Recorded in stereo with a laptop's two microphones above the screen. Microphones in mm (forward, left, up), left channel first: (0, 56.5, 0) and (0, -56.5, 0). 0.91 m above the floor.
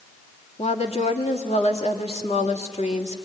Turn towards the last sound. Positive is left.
turn(degrees=70)  # may be behind; listen again after turning